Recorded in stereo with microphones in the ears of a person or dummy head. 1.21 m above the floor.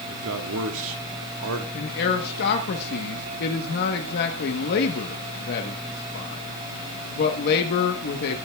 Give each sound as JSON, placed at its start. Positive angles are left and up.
{"t": 0.1, "sound": "a man speaking", "side_deg": -75, "distance_m": 1.5}
{"t": 1.7, "sound": "a man speaking", "side_deg": 55, "distance_m": 1.1}